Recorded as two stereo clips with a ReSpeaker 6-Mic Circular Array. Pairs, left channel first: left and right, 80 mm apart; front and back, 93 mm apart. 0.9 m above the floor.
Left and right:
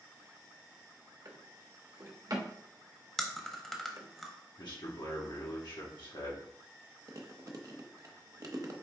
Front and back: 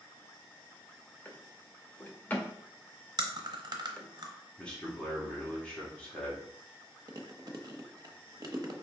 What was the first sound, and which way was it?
A drawer, 65° right.